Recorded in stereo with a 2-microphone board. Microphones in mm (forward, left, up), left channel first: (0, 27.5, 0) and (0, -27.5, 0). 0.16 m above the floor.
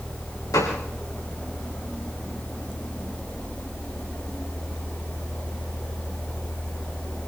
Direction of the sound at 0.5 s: 85° left.